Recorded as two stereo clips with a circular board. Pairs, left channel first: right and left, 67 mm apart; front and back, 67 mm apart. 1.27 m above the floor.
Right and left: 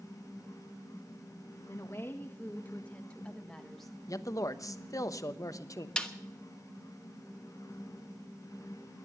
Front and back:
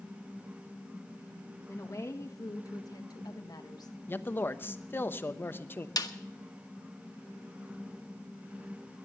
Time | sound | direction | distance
1.7 | a woman speaking | 45° right | 1.7 m
4.1 | a man speaking | 55° right | 0.9 m
6.0 | a snare drum | 15° right | 1.1 m